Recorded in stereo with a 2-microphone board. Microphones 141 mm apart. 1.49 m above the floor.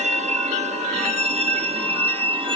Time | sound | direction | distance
0.0 | a vehicle | 55° right (ahead or behind) | ?